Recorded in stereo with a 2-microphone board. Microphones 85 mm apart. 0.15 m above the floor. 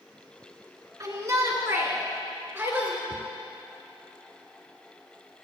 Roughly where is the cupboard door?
Left.